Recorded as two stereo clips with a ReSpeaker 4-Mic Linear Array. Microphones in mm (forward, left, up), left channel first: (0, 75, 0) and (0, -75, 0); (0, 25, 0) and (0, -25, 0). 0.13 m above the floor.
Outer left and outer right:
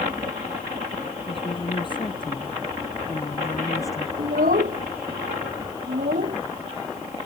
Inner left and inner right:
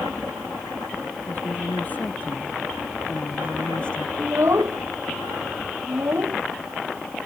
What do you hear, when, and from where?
1.2 s a woman speaking: 35° left (ahead or behind); by 4.1 s 20° left (ahead or behind)
4.2 s a child speaking: 70° right (ahead or behind)